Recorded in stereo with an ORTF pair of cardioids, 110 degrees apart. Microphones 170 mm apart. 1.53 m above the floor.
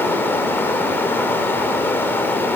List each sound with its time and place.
0.0 s running water: 10° left, 5.5 m